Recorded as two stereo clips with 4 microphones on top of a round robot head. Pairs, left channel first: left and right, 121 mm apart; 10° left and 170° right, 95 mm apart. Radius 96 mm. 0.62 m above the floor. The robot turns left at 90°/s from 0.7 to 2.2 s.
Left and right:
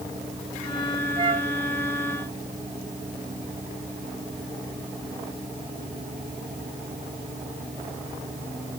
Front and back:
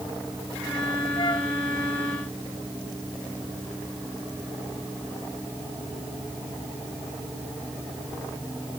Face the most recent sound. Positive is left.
turn(degrees=-135)